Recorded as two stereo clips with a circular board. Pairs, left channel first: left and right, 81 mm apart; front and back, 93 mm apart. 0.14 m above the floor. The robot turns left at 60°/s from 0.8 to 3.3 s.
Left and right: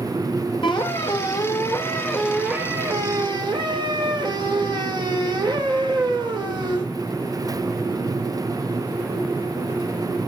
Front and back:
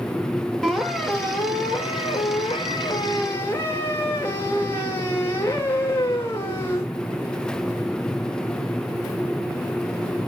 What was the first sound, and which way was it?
A squeak, 85° left.